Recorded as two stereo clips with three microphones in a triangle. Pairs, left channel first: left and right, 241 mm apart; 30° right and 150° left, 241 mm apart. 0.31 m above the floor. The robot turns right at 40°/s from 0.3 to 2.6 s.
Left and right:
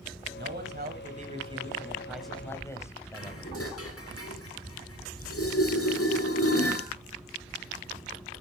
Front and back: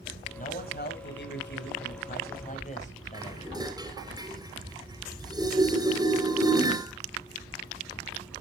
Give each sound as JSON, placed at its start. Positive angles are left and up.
{"t": 0.4, "sound": "a man speaking", "azimuth_deg": -75, "distance_m": 2.0}
{"t": 3.1, "sound": "dishes clattering", "azimuth_deg": 80, "distance_m": 2.5}